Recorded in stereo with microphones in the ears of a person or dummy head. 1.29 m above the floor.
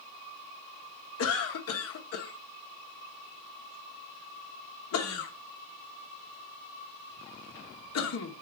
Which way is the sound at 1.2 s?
85° left.